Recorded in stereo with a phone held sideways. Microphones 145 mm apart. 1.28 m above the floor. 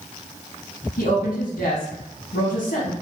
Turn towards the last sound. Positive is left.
turn(degrees=80)